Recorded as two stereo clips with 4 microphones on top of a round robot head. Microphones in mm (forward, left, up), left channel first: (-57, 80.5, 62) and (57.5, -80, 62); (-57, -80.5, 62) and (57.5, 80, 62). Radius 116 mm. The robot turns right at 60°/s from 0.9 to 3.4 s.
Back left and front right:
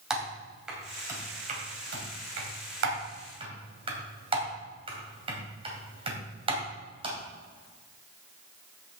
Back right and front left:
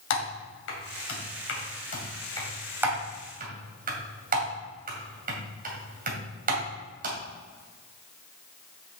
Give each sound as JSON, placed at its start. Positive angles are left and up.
{"t": 0.1, "sound": "typing on a keyboard", "azimuth_deg": -140, "distance_m": 2.5}